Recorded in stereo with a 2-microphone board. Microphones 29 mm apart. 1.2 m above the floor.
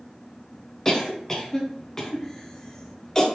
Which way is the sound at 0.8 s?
20° left (ahead or behind).